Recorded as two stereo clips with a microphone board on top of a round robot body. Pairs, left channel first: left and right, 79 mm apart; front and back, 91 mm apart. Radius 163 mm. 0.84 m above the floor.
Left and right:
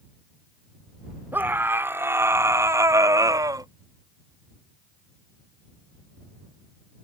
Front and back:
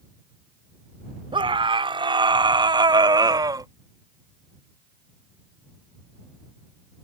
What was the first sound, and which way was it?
A scream, 155° right.